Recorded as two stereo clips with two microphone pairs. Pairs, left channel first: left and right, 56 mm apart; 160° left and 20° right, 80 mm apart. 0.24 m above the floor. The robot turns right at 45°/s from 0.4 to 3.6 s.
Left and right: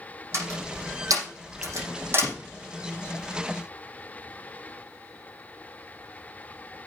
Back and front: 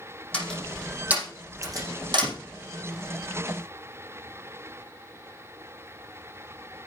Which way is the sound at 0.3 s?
125° right.